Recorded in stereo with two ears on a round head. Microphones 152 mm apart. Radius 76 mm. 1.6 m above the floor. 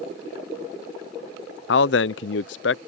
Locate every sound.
1.7 s a man speaking: 70° left (ahead or behind)